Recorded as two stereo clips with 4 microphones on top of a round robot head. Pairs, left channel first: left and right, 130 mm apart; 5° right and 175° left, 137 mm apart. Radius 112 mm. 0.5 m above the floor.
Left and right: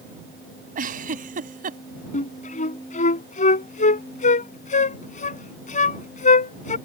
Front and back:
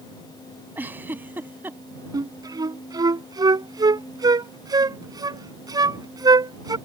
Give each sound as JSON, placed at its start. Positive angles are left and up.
{"t": 0.8, "sound": "a giggle", "azimuth_deg": -105}
{"t": 2.1, "sound": "a flute", "azimuth_deg": 115}